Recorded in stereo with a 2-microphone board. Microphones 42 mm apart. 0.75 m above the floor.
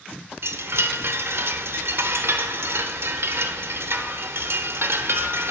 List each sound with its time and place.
0.4 s a chime: 65° right (ahead or behind), 0.5 m